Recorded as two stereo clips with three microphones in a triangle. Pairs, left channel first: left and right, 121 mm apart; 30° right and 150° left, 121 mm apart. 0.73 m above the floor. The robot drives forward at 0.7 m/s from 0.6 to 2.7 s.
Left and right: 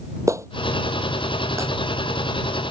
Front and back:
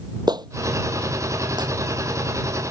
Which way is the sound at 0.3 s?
155° right.